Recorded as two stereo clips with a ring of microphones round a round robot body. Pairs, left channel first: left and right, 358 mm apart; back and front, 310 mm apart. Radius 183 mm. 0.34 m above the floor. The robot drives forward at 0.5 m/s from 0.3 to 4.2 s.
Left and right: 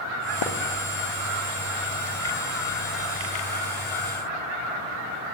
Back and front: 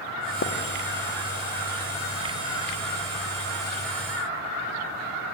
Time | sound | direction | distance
0.4 | a splash | 125° left | 5 m